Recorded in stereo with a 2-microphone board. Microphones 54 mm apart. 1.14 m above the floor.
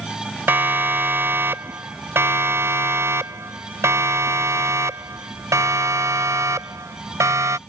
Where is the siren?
45° right (ahead or behind); by 7.6 s 85° right.